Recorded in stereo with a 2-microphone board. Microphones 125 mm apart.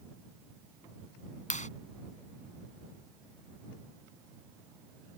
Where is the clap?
80° left.